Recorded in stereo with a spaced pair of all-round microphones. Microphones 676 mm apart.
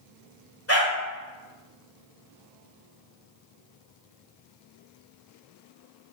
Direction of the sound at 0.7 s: 20° left (ahead or behind).